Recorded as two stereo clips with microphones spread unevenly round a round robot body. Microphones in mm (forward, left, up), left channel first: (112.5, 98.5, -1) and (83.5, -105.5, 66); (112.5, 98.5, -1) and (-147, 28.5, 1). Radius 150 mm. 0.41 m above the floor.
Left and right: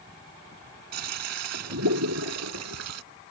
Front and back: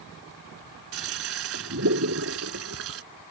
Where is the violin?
I don't hear a violin.